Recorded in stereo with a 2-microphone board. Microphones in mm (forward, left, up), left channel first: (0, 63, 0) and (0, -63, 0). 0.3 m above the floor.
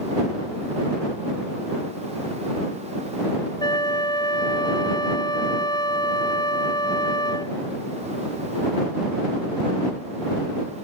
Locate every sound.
3.6 s a flute: 35° left (ahead or behind)